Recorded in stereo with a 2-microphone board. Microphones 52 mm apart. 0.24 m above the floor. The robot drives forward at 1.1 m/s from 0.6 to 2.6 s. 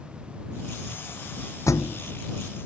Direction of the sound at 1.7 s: 80° left.